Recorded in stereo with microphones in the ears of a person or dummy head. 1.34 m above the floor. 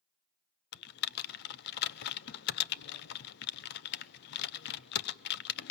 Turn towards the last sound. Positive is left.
turn(degrees=55)  # may be behind; listen again after turning